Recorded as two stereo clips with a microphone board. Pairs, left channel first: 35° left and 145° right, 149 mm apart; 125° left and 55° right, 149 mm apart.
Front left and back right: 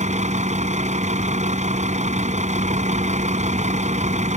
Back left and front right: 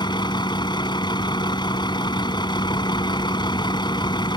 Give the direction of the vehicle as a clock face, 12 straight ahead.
6 o'clock.